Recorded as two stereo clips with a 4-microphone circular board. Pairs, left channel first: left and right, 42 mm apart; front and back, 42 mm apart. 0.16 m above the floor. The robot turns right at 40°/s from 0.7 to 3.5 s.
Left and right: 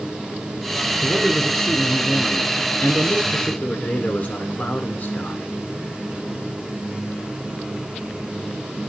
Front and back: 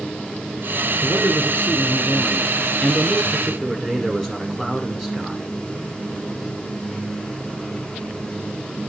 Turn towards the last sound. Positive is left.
turn(degrees=85)